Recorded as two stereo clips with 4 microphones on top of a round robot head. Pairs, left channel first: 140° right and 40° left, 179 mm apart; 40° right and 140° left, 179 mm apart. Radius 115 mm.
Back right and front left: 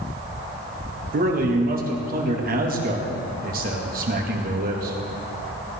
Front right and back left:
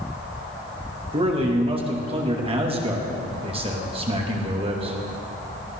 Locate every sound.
1.1 s a man speaking: 80° left, 2.5 m